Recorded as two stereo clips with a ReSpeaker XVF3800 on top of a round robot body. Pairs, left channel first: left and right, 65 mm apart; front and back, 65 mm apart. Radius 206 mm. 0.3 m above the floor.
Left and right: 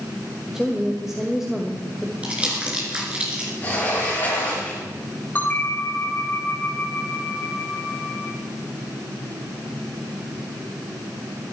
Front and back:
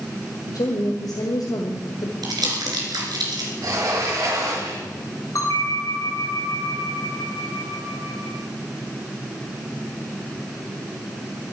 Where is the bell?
25° left, 3.5 m.